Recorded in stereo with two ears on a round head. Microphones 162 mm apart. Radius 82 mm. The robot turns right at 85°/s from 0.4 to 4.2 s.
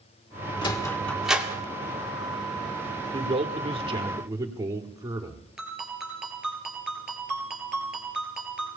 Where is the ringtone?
Centre (ahead or behind), 3.5 m.